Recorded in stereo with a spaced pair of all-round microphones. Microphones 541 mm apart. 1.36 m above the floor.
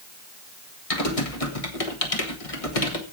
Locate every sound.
0.9 s typing on a keyboard: 85° left, 1.6 m